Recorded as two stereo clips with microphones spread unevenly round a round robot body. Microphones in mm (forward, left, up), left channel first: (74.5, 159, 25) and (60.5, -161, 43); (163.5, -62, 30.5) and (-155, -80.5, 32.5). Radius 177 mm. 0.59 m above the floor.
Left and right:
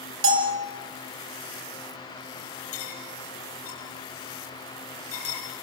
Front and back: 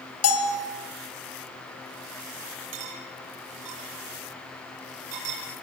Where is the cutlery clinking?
145° left, 8 m.